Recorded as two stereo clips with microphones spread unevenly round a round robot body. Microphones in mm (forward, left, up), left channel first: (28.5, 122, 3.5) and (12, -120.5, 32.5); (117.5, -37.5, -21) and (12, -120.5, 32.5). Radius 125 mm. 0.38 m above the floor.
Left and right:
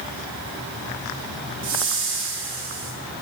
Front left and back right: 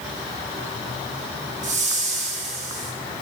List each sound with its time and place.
1.6 s a whoosh: 110° right, 1.2 m